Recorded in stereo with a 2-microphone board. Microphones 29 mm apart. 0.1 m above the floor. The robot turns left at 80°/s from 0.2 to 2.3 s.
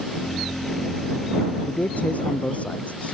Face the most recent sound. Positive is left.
turn(degrees=55)